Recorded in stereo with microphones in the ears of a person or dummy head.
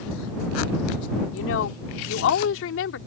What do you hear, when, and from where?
1.3 s a woman speaking: 85° left; by 3.0 s 75° left (ahead or behind)